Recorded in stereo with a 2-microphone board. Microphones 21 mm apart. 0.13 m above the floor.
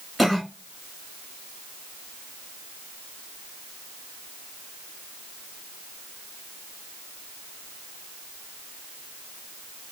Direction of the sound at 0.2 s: 5° right (ahead or behind).